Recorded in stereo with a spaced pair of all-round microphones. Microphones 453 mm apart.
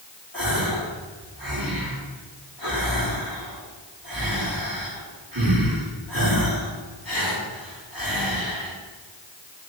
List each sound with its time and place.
0.3 s a gasp: 50° right (ahead or behind), 5 m